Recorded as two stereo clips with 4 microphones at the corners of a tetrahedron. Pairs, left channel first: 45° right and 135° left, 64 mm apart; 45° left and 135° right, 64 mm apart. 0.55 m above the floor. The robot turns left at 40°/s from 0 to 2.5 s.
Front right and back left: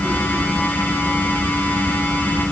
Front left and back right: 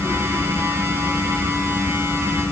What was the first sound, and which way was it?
Only background noise.